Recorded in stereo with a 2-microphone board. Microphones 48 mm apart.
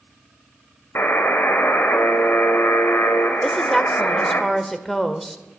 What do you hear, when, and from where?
0.9 s a buzzer: 60° left (ahead or behind), 1.3 m
3.4 s a woman speaking: 5° left (ahead or behind), 0.9 m